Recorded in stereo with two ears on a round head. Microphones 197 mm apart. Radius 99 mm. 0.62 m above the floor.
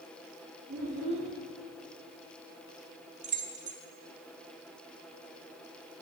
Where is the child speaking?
45° right (ahead or behind), 7 m.